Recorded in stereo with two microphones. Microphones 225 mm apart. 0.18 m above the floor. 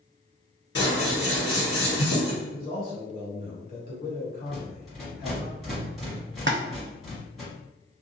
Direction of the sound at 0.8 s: 50° left (ahead or behind).